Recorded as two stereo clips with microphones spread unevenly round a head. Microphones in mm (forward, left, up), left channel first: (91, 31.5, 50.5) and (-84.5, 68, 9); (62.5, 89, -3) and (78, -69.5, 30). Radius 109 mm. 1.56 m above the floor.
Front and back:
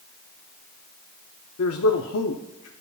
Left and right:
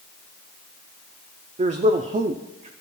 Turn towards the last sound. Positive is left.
turn(degrees=-35)